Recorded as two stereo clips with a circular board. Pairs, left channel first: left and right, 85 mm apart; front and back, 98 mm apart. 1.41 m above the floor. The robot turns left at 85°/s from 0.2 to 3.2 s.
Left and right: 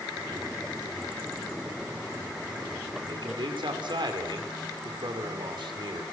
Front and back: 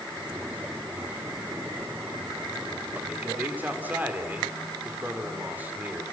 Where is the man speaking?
100° right, 4 m; by 6.0 s 110° right, 4 m.